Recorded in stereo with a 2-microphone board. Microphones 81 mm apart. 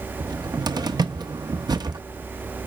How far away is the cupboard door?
About 0.9 m.